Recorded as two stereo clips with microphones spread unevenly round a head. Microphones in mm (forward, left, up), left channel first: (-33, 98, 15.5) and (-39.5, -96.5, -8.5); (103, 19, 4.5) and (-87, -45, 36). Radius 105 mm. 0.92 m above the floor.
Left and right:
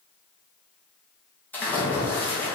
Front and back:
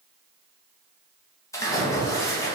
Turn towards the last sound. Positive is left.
turn(degrees=0)